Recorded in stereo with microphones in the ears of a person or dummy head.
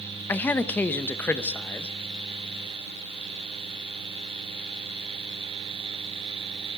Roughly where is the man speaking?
Centre.